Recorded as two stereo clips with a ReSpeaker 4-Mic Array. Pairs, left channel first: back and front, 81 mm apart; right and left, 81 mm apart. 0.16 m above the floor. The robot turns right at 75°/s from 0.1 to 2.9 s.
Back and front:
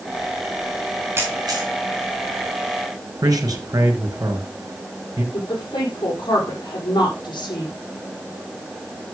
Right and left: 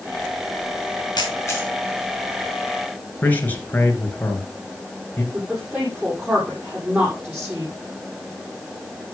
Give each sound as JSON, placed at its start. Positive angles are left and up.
{"t": 1.2, "sound": "a camera shutter", "azimuth_deg": -60, "distance_m": 3.5}
{"t": 3.2, "sound": "a man speaking", "azimuth_deg": -25, "distance_m": 3.0}
{"t": 5.3, "sound": "a woman speaking", "azimuth_deg": 155, "distance_m": 7.0}